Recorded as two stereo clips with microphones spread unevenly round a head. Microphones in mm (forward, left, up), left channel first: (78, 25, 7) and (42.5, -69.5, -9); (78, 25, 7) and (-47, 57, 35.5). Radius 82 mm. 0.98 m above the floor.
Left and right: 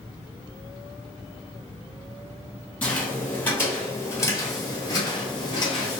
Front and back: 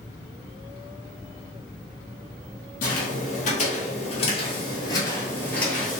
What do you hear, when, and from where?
2.8 s footsteps: straight ahead, 1.7 m; by 6.0 s 85° left, 1.4 m